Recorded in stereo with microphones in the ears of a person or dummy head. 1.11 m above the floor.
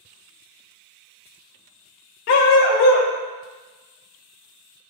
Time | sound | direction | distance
2.3 | a dog barking | 45° left (ahead or behind) | 1.1 m